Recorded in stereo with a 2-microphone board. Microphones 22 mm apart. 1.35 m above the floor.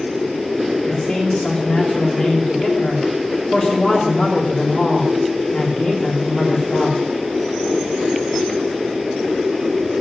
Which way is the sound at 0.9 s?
35° left (ahead or behind).